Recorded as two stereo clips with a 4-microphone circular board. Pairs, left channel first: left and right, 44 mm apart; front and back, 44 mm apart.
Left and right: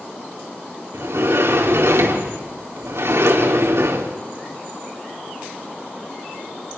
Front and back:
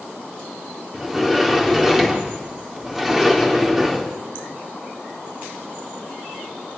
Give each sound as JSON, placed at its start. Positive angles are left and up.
{"t": 0.9, "sound": "a sliding door", "azimuth_deg": -100, "distance_m": 3.0}